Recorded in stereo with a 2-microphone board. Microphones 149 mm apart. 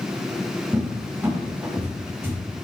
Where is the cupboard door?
15° right (ahead or behind), 1.1 m.